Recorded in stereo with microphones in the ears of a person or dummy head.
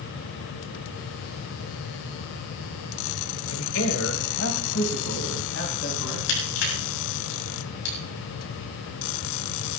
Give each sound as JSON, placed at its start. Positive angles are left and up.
{"t": 3.5, "sound": "a man speaking", "side_deg": 80, "distance_m": 1.6}
{"t": 6.3, "sound": "crushing", "side_deg": 70, "distance_m": 6.0}